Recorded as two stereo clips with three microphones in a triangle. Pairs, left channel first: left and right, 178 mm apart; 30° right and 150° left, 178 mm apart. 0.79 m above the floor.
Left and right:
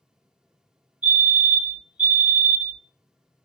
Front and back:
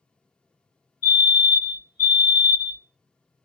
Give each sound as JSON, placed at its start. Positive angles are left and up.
{"t": 1.0, "sound": "a fire alarm", "azimuth_deg": 105, "distance_m": 1.8}